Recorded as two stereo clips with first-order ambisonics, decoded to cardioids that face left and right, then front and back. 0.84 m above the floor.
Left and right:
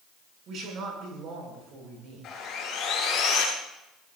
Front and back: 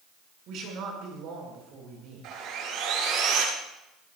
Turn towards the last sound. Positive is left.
turn(degrees=145)